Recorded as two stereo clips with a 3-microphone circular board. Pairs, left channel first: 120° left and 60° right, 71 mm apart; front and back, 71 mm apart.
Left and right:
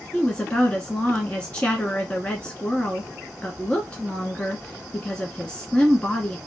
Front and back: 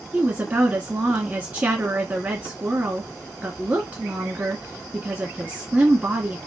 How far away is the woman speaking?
About 1.2 m.